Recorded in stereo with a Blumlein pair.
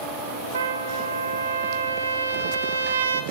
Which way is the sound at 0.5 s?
65° right.